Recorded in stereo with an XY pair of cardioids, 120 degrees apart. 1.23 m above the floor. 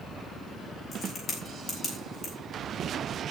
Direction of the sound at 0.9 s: 40° left.